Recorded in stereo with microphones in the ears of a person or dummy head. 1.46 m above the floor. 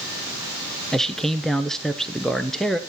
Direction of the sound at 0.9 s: 5° right (ahead or behind).